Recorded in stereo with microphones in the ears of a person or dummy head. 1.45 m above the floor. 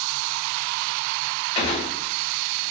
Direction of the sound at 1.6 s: 25° left (ahead or behind).